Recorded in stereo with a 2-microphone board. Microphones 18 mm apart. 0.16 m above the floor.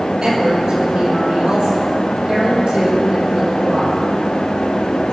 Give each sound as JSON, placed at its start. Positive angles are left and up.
{"t": 0.2, "sound": "a woman speaking", "side_deg": -30, "distance_m": 5.0}